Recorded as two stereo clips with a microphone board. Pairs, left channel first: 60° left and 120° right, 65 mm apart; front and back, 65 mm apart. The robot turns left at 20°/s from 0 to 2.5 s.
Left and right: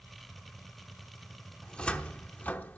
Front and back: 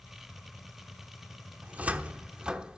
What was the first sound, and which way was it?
A cupboard door, 135° left.